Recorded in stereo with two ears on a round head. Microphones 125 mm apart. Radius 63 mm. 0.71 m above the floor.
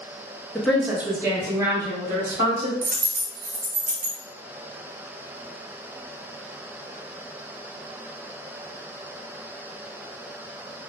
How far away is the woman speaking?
About 0.6 m.